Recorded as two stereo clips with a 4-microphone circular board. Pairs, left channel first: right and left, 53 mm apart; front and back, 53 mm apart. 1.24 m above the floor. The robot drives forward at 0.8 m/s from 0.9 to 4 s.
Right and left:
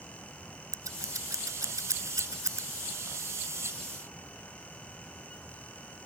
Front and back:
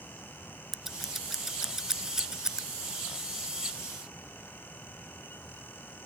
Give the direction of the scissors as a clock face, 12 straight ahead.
9 o'clock.